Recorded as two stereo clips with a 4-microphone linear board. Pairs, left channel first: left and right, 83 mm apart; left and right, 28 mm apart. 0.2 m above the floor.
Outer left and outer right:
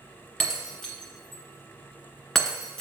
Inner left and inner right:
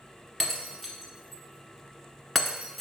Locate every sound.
0.4 s breaking glass: 5° left (ahead or behind), 1.6 m